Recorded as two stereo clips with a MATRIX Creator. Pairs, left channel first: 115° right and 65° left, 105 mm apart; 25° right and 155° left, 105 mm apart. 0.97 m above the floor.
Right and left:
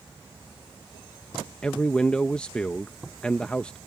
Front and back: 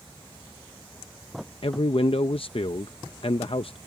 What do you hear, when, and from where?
1.6 s a man speaking: 35° right